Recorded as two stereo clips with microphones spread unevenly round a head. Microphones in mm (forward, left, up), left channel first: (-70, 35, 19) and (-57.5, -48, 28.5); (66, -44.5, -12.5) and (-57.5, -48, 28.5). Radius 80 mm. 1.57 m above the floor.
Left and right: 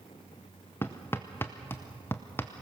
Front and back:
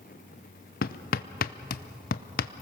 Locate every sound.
0.8 s hammering: 20° left, 0.6 m